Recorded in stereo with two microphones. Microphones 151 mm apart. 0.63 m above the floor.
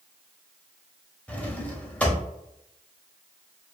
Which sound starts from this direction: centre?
A drawer, at 1.3 s.